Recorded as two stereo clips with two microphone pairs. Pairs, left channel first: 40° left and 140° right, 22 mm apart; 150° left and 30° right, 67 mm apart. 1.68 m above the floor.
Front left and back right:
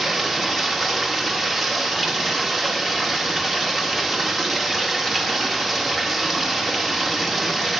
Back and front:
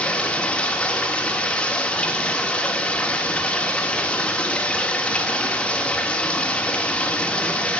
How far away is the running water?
About 1.3 m.